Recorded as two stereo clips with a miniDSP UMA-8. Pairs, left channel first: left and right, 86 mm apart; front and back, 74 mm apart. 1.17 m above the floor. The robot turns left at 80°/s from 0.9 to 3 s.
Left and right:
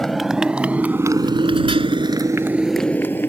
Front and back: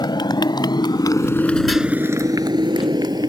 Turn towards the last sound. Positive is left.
turn(degrees=160)